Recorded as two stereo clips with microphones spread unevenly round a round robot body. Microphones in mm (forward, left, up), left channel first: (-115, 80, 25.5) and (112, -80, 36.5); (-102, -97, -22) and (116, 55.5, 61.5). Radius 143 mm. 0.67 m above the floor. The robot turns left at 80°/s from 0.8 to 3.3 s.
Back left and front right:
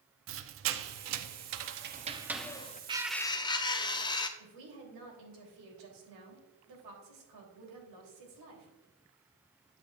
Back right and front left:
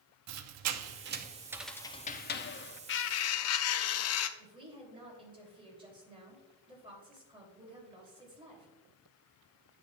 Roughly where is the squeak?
Ahead.